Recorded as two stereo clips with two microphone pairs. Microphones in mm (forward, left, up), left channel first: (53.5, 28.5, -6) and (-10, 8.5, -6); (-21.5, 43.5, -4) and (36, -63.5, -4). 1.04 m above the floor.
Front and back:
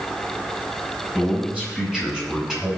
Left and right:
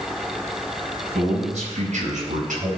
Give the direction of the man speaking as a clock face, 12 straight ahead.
3 o'clock.